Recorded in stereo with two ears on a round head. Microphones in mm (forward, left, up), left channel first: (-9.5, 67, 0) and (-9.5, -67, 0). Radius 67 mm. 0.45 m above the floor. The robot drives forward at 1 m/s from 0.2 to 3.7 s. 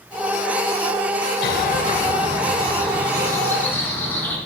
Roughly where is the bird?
Left.